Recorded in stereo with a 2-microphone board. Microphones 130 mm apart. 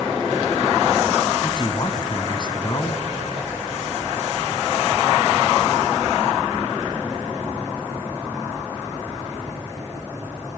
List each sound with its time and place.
1.4 s a man speaking: 35° left (ahead or behind), 1.5 m